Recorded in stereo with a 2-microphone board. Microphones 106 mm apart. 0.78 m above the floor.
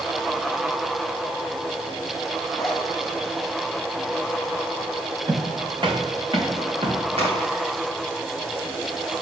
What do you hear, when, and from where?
2.6 s a zipper: 5° left (ahead or behind), 1.2 m
5.3 s footsteps: 45° right (ahead or behind), 3 m; by 7.0 s 60° right (ahead or behind), 4 m
7.2 s a crack: 75° right (ahead or behind), 4 m